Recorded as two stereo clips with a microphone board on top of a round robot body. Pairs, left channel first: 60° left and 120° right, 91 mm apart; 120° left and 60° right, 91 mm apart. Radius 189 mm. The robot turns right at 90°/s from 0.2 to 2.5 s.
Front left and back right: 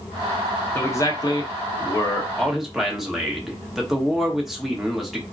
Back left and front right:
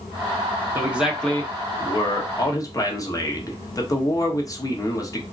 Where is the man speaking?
5° right, 1.7 m; by 5.2 s 155° left, 1.7 m.